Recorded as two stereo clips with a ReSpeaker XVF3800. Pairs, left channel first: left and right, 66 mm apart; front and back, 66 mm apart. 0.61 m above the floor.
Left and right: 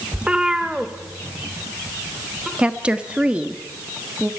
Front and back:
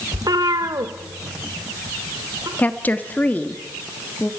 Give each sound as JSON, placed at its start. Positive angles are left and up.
{"t": 0.1, "sound": "a cat meowing", "azimuth_deg": -160, "distance_m": 0.7}
{"t": 2.6, "sound": "a woman speaking", "azimuth_deg": -35, "distance_m": 1.3}